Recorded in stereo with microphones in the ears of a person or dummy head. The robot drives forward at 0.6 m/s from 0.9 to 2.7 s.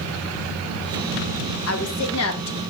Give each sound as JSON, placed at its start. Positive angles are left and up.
{"t": 1.7, "sound": "a woman speaking", "side_deg": 75, "distance_m": 1.9}